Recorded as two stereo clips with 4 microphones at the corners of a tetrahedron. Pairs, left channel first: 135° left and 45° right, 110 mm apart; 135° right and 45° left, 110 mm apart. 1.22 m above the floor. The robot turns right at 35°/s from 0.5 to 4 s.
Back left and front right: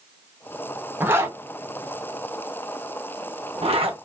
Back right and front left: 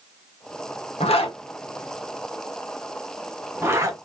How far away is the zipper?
About 0.9 m.